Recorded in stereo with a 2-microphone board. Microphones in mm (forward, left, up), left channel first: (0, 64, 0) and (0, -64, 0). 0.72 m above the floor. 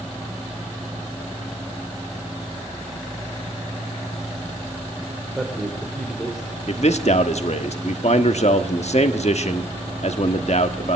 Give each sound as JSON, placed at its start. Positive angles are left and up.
{"t": 5.3, "sound": "a man speaking", "side_deg": -5, "distance_m": 3.0}
{"t": 6.7, "sound": "a man speaking", "side_deg": 60, "distance_m": 1.2}